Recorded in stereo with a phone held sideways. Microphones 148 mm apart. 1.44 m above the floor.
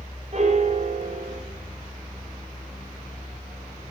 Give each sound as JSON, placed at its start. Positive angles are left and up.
{"t": 0.3, "sound": "a piano", "side_deg": -50, "distance_m": 0.8}